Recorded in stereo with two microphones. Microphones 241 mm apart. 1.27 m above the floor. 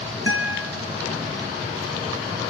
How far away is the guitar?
About 4 m.